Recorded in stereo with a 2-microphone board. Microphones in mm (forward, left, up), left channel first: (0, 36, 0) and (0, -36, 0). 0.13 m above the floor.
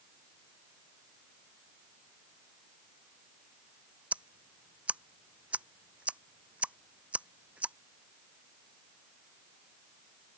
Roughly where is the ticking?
Centre.